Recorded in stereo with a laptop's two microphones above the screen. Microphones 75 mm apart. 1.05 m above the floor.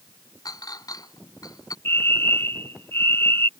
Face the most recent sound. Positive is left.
turn(degrees=30)  # may be behind; listen again after turning